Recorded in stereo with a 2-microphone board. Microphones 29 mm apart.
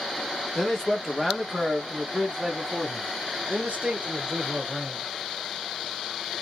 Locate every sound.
0.6 s a man speaking: 15° left (ahead or behind), 1.3 m; by 5.1 s 45° right (ahead or behind), 2.5 m